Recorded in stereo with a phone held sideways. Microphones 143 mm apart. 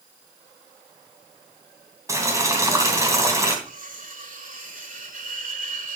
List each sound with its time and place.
2.1 s boiling: 20° right (ahead or behind), 3 m
3.6 s cutlery clinking: 75° right (ahead or behind), 3 m